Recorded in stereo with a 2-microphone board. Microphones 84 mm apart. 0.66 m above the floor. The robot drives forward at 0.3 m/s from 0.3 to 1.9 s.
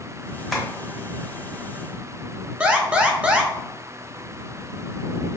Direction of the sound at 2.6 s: 15° right (ahead or behind).